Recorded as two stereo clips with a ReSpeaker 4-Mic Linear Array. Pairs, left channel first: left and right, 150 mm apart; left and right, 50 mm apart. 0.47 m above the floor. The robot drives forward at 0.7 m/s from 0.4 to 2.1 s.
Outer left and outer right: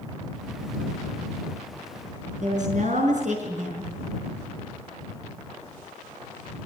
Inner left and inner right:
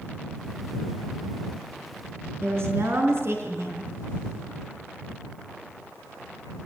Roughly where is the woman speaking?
Right.